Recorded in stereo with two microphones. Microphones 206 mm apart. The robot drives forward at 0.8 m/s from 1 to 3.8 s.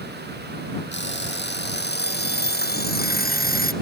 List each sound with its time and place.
0.9 s an alarm clock: 60° left (ahead or behind); by 3.7 s 45° left (ahead or behind)